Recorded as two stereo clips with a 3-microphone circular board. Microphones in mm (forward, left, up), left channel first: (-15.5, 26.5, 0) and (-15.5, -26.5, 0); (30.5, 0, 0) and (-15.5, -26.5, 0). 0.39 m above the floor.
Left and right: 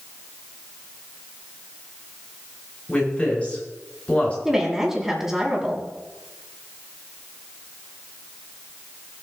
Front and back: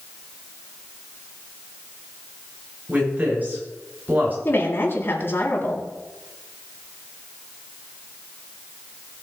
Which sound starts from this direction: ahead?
A woman speaking, at 4.5 s.